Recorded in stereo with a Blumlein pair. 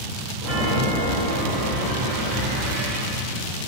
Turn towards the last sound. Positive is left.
turn(degrees=-45)